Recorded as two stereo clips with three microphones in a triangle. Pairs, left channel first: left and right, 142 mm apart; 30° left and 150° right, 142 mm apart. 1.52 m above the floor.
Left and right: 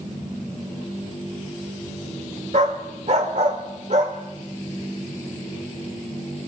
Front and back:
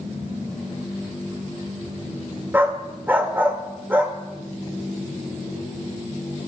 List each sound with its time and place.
2.5 s a dog barking: 75° right, 2 m